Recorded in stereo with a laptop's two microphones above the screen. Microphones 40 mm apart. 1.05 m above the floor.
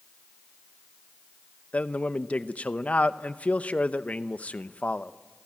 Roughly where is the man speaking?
Left.